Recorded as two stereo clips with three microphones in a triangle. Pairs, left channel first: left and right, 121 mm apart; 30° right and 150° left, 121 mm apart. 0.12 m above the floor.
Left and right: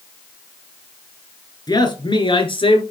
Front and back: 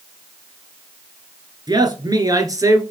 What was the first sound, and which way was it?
A man speaking, 120° left.